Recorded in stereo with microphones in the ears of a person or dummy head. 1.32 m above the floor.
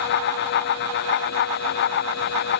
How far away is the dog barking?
I don't hear a dog barking.